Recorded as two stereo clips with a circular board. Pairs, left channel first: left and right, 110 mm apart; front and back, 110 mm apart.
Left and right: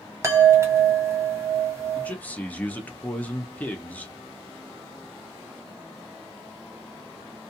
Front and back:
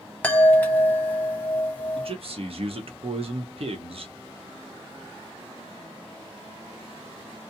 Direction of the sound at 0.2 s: 55° right.